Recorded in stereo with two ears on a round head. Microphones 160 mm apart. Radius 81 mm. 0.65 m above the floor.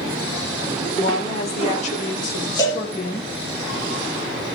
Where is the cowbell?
20° left (ahead or behind), 4.5 m.